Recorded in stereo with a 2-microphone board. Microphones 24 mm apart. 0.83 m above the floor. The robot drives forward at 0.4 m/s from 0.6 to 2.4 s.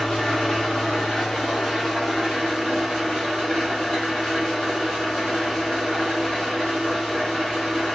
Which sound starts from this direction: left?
An engine running, at 0.0 s.